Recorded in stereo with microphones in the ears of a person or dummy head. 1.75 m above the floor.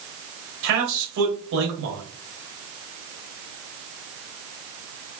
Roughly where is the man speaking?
Right.